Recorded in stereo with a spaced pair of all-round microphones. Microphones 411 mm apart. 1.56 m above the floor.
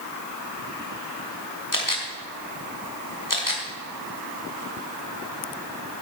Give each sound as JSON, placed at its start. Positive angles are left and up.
{"t": 1.7, "sound": "a camera shutter", "side_deg": 50, "distance_m": 2.5}